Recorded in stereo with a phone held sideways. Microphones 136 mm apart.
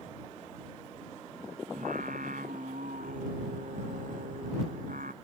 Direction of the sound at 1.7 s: 85° right.